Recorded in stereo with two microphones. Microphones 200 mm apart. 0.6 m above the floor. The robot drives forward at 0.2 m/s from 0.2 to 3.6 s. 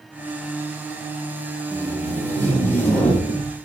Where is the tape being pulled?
10° left (ahead or behind), 0.9 m.